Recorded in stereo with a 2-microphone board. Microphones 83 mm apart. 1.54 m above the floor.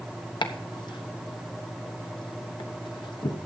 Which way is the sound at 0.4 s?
70° left (ahead or behind).